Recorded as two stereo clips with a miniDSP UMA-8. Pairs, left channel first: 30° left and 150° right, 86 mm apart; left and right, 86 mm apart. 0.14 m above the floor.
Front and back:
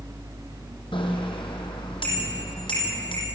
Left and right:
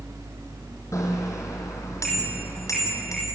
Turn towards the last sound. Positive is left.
turn(degrees=40)